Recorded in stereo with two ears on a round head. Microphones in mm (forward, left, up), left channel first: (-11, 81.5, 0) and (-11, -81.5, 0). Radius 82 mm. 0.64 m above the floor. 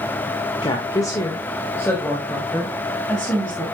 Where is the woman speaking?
25° left (ahead or behind), 1.7 m; by 3.6 s centre (ahead or behind), 4.5 m.